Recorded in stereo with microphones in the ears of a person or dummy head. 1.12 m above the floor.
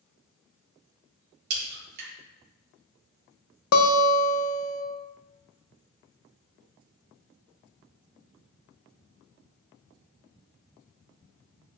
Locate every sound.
1.5 s a crack: 55° right (ahead or behind), 2.5 m
3.7 s a guitar: 70° left (ahead or behind), 0.7 m